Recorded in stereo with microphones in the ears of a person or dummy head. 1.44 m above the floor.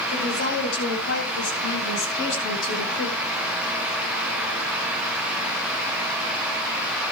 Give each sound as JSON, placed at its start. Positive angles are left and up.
{"t": 0.1, "sound": "a woman speaking", "side_deg": 75, "distance_m": 9.5}